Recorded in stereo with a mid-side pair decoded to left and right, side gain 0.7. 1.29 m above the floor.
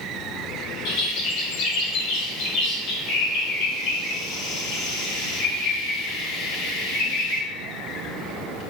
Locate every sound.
0.8 s a bird: 65° left, 0.9 m